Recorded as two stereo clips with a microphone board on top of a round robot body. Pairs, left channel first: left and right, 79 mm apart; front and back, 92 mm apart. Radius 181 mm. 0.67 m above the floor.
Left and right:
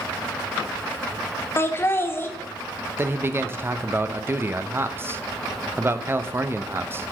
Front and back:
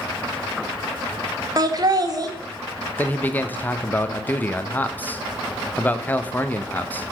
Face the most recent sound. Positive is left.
turn(degrees=-55)